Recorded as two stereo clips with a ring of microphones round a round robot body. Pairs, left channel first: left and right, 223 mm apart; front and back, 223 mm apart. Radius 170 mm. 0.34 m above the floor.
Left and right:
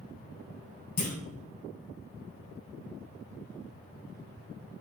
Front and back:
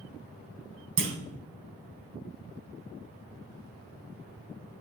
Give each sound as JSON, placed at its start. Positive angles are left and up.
{"t": 1.0, "sound": "a clunk", "azimuth_deg": 150, "distance_m": 1.3}